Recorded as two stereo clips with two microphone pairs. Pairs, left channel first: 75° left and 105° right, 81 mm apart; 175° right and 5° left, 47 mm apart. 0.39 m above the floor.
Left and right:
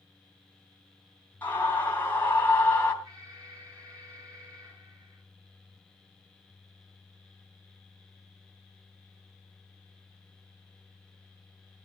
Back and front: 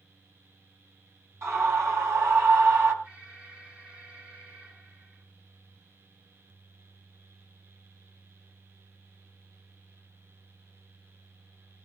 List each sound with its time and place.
1.4 s a scream: 15° left, 3.5 m
3.0 s an alarm: 60° right, 9 m